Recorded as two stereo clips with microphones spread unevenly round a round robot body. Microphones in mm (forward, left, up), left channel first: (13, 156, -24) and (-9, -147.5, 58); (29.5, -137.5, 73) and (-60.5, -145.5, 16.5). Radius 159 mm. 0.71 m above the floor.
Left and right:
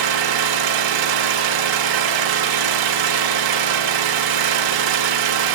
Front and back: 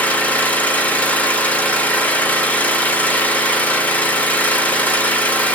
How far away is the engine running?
About 1.4 m.